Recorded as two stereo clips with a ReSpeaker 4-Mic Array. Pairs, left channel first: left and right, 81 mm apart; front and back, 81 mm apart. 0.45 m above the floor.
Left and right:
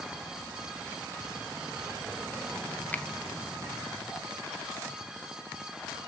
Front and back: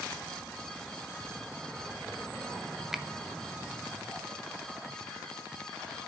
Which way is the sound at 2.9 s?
100° left.